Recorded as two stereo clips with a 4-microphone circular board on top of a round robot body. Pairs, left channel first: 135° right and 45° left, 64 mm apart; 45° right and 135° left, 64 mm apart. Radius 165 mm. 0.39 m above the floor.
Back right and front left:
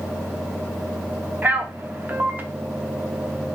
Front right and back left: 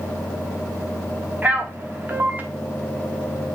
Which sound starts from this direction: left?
A man speaking, at 1.4 s.